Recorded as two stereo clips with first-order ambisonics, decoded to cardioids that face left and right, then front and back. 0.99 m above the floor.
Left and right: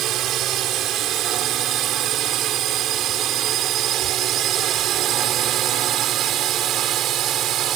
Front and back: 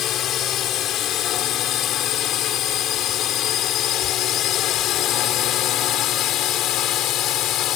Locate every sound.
0.0 s a drone: 45° right; by 7.8 s 40° right